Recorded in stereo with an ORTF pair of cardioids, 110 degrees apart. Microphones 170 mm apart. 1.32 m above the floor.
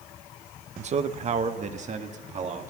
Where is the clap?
I don't hear a clap.